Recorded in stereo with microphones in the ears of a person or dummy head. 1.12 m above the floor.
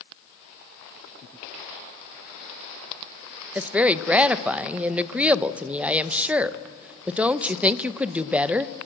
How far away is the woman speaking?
About 0.7 m.